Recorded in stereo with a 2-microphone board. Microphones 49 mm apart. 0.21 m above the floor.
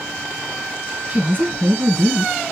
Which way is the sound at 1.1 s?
40° right (ahead or behind).